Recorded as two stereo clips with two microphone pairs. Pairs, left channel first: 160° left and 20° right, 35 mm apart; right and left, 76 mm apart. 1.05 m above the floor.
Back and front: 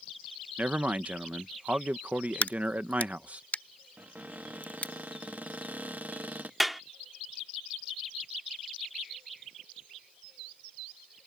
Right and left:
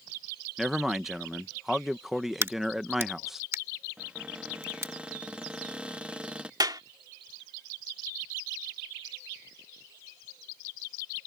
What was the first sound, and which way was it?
A man speaking, 5° left.